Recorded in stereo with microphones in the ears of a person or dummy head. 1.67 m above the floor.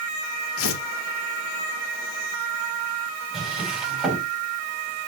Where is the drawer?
Centre (ahead or behind), 5 m.